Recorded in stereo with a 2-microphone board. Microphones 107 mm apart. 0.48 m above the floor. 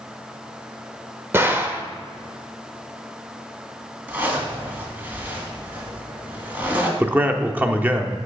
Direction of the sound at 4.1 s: 15° right (ahead or behind).